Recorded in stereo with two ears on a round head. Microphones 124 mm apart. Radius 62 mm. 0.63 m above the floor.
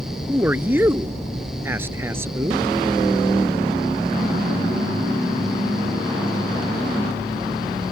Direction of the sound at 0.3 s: 15° right (ahead or behind).